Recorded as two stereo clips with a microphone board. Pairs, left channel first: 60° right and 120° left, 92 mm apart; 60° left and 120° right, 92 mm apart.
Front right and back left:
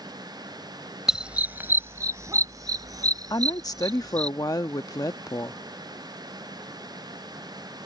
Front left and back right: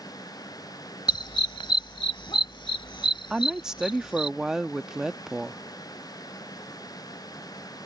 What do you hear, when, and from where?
1.1 s a dog barking: 35° left; by 4.3 s 85° left
3.3 s a woman speaking: 40° right